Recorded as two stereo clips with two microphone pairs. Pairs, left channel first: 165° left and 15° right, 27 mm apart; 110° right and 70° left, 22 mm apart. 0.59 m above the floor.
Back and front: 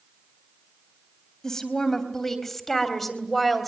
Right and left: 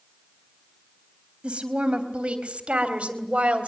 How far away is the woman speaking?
About 3.5 m.